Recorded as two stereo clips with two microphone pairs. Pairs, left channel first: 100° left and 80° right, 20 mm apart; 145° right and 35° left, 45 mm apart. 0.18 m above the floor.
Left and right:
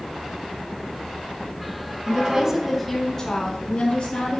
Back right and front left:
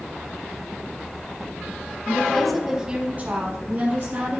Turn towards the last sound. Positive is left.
turn(degrees=65)